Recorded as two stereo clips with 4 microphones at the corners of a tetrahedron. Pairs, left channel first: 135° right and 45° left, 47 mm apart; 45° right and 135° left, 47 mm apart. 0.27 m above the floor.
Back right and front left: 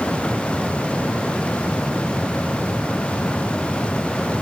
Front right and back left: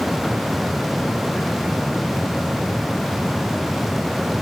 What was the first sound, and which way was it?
Only background noise.